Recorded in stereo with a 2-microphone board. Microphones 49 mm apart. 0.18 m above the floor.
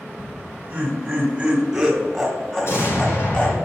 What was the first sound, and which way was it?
Laughter, 25° right (ahead or behind).